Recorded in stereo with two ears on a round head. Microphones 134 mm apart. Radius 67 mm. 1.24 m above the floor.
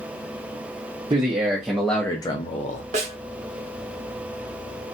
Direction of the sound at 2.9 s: 50° right (ahead or behind).